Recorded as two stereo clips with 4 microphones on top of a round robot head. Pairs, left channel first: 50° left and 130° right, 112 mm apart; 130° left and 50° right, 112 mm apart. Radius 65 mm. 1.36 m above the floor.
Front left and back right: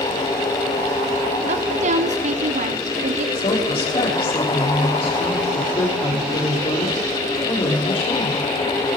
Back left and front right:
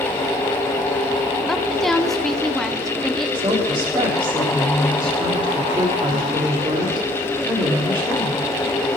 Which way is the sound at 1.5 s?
145° right.